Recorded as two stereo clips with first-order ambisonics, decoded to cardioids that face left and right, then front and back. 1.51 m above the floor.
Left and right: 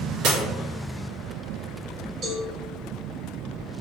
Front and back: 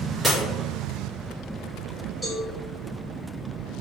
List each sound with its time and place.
0.2 s breaking glass: 100° right, 1.1 m
2.2 s a cowbell: 75° right, 1.5 m